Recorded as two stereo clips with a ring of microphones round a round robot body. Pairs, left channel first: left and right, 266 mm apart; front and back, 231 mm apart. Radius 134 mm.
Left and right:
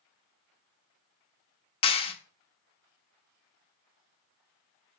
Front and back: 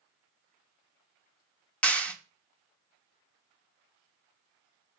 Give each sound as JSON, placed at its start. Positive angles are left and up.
{"t": 1.8, "sound": "a clap", "azimuth_deg": 75, "distance_m": 1.0}